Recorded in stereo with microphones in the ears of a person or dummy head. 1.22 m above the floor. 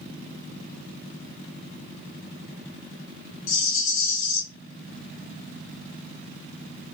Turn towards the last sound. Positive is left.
turn(degrees=65)  # may be behind; listen again after turning